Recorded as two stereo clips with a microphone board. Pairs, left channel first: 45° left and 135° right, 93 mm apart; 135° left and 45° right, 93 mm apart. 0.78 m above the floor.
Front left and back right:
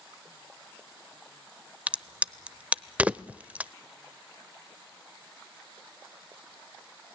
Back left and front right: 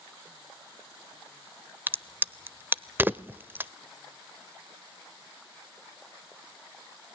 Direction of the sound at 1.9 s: 80° right.